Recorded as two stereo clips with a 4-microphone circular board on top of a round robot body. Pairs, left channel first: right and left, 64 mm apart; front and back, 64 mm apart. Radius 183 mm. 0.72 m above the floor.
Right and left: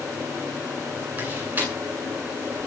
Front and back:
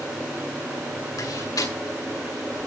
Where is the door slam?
30° left, 9.5 m.